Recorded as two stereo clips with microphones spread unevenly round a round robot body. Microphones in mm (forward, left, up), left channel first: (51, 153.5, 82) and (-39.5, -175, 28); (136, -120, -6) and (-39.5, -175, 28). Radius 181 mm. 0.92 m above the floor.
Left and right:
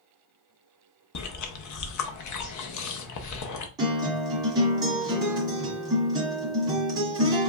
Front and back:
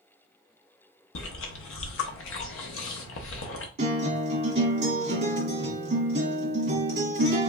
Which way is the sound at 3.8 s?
170° left.